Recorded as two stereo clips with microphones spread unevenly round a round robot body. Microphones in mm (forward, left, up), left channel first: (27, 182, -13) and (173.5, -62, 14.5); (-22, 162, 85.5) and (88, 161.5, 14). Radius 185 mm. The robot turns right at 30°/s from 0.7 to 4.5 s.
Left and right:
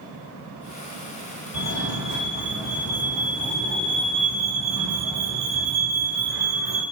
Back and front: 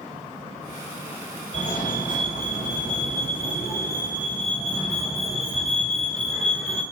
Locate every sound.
1.5 s a fire alarm: 160° left, 5 m; by 6.8 s 115° right, 5 m